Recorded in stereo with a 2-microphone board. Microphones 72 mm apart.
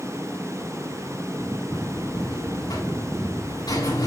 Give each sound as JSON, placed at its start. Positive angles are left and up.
{"t": 1.7, "sound": "a buzzer", "side_deg": 65, "distance_m": 7.5}